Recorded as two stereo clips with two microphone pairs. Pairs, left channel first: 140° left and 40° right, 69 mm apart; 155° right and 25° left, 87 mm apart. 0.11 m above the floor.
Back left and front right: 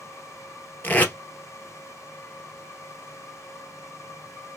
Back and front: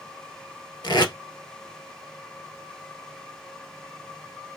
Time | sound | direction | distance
0.8 | tape being pulled | 160° right | 1.3 m